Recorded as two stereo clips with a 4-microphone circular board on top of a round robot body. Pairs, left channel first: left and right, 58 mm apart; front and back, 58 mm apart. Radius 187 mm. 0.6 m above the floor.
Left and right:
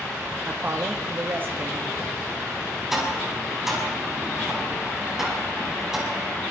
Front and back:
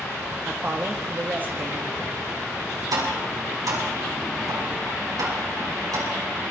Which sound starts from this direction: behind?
Tapping, at 2.9 s.